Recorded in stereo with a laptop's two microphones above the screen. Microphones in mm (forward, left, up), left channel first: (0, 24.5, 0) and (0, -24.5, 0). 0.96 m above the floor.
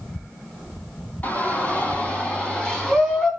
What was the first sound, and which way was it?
A shout, 30° left (ahead or behind).